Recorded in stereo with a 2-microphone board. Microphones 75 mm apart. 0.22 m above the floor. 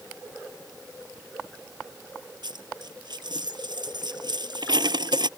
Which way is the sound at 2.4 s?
75° right (ahead or behind).